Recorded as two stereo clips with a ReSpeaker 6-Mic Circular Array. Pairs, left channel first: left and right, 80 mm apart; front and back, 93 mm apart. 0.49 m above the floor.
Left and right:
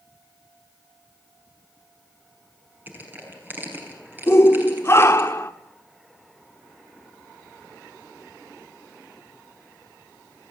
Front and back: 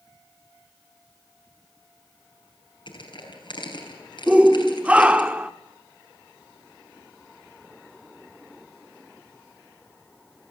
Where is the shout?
115° left, 0.8 m.